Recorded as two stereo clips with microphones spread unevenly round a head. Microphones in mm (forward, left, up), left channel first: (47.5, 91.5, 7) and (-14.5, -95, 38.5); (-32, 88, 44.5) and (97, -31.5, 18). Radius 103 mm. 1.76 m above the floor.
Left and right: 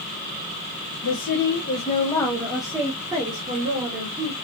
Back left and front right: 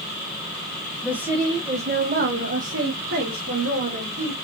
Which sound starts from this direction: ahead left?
A woman speaking, at 1.0 s.